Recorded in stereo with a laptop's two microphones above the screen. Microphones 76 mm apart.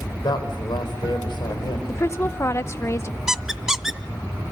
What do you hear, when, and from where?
0.2 s a woman speaking: 75° left (ahead or behind), 3.5 m
1.9 s a woman speaking: 35° left (ahead or behind), 0.8 m
3.3 s a squeak: 5° right (ahead or behind), 0.7 m